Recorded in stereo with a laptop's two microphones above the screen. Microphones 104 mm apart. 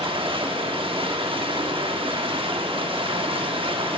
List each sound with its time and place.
0.0 s running water: 55° right (ahead or behind), 0.7 m